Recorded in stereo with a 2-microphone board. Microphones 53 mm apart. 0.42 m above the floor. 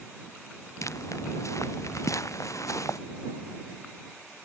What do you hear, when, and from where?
0.8 s footsteps: 75° left (ahead or behind)